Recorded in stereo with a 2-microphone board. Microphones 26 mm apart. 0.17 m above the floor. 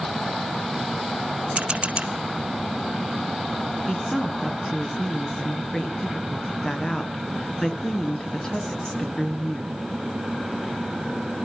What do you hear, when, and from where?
1.6 s a camera shutter: 50° right (ahead or behind), 1.2 m
3.9 s a woman speaking: 30° left (ahead or behind), 2 m